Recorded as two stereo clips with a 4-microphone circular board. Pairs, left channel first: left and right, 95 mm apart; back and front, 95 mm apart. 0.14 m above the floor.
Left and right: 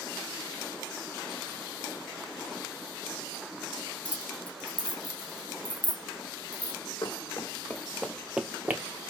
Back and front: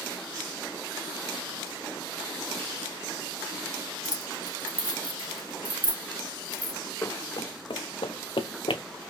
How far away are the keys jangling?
About 1.2 m.